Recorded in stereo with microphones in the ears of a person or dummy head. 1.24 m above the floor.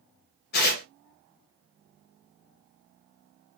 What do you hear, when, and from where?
0.5 s tearing paper: 50° left (ahead or behind), 0.7 m